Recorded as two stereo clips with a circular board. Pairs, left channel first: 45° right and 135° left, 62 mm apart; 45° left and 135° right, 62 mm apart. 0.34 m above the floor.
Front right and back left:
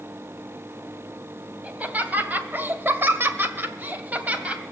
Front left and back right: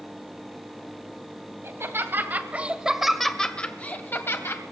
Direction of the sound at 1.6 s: 165° right.